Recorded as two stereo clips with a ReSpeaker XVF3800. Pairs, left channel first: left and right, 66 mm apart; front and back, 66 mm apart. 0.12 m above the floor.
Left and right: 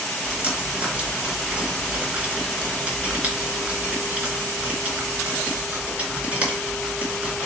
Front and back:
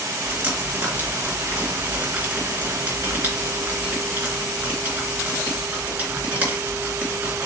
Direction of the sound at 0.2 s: 140° right.